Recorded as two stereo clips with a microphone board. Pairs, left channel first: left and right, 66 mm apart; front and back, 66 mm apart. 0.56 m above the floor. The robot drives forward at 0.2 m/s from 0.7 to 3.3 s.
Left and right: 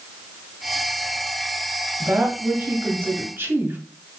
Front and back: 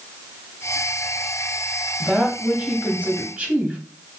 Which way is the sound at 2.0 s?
100° right.